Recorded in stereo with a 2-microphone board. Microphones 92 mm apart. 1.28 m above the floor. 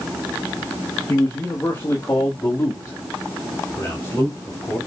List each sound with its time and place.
1.1 s a man speaking: 25° left (ahead or behind), 1.8 m; by 4.8 s 30° left (ahead or behind), 3.5 m